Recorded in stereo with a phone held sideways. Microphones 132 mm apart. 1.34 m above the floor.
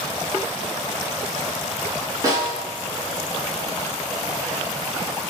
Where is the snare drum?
25° right (ahead or behind), 1.4 m.